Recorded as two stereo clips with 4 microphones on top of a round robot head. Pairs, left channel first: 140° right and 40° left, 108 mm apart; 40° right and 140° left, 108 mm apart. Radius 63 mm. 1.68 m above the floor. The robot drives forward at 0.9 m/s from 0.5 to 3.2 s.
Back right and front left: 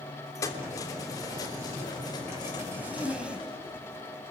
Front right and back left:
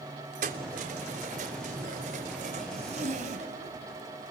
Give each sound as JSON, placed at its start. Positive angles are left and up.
{"t": 0.3, "sound": "keys jangling", "azimuth_deg": 155, "distance_m": 3.0}
{"t": 2.7, "sound": "a zipper", "azimuth_deg": 115, "distance_m": 3.0}